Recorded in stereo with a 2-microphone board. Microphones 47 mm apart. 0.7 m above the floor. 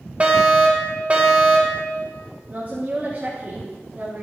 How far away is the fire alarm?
About 3 m.